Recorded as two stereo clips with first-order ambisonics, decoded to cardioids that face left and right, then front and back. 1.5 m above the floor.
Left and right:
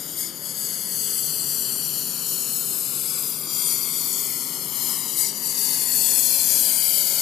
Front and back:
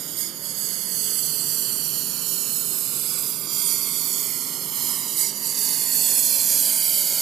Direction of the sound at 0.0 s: 145° left.